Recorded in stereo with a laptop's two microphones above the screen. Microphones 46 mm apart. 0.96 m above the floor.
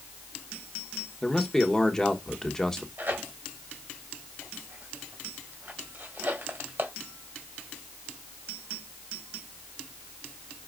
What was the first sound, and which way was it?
A man speaking, 15° left (ahead or behind).